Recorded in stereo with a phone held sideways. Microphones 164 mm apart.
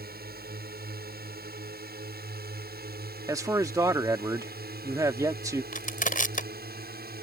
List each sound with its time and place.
0.0 s a drone: 65° right (ahead or behind)
3.3 s a man speaking: 20° right (ahead or behind)
5.7 s crushing: 50° left (ahead or behind)